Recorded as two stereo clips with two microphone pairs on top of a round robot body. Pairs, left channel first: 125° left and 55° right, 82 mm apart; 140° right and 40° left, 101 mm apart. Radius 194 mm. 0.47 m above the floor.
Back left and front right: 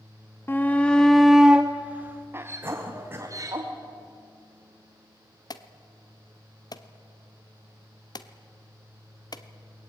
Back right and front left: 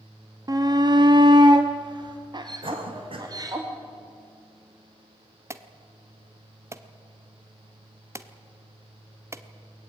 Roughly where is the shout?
Left.